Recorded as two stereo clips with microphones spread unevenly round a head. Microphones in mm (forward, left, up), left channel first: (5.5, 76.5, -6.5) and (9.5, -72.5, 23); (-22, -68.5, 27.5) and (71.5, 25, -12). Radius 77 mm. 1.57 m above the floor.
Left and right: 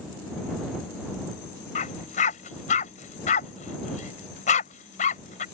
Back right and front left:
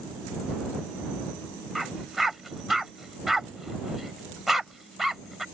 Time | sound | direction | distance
1.8 | a dog barking | 140° left | ?